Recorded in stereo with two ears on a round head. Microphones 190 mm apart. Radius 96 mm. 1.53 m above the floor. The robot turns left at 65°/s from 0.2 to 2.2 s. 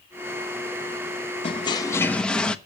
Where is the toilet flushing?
60° left, 0.7 m; by 2.6 s 10° left, 0.7 m.